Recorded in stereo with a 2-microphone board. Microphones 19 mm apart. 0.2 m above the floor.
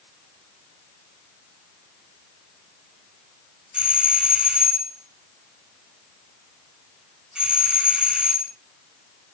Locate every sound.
3.7 s a doorbell: 50° right (ahead or behind), 4 m